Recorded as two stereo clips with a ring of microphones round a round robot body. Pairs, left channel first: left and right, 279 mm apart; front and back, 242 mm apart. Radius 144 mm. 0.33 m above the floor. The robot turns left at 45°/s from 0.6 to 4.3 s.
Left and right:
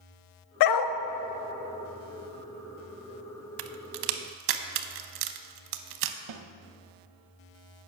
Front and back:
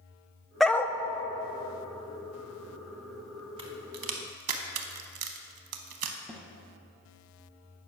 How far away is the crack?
About 0.5 m.